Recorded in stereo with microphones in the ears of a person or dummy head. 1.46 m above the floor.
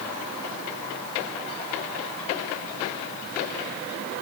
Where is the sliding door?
No sliding door in this recording.